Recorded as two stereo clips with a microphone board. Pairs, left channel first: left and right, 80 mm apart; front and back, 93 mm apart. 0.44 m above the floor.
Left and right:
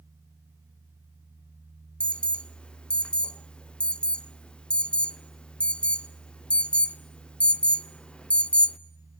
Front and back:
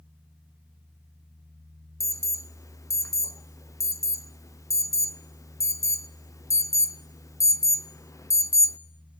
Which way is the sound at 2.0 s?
20° left.